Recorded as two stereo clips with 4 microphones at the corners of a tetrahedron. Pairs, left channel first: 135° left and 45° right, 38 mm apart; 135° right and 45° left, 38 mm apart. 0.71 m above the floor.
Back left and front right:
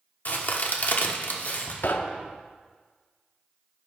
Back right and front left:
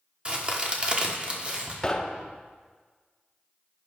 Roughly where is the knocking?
Behind left.